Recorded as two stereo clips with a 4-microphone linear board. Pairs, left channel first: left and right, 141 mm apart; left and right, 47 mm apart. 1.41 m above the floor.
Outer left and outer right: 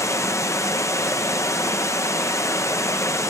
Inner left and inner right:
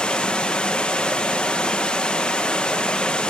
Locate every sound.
0.0 s running water: 20° left (ahead or behind), 0.9 m